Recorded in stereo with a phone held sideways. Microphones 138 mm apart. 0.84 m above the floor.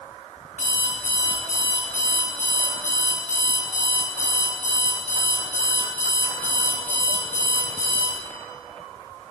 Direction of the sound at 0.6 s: 65° left (ahead or behind).